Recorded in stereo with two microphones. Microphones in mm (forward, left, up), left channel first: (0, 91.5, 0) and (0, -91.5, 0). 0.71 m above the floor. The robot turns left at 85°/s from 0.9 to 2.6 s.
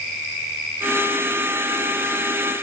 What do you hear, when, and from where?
Only background noise.